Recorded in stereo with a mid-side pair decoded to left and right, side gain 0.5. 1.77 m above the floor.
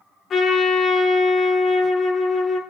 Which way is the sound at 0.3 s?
45° left.